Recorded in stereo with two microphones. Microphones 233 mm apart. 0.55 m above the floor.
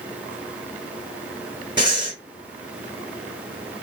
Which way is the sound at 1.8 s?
20° right (ahead or behind).